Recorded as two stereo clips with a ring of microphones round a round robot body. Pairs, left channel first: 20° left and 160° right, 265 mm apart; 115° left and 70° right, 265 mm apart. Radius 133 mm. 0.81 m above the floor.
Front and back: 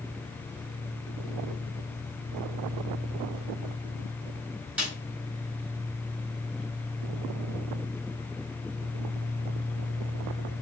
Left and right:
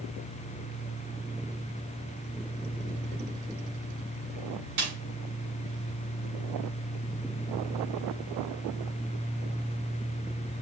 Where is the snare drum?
70° right, 4.5 m.